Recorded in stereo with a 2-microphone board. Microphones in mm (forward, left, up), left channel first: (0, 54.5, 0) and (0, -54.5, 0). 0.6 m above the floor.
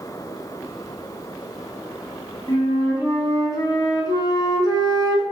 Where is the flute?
35° left (ahead or behind), 0.7 m.